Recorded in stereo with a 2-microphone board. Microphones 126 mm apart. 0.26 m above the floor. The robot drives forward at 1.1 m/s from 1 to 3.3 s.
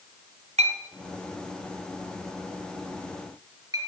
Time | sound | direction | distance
0.6 | a clink | 60° right (ahead or behind) | 1.4 m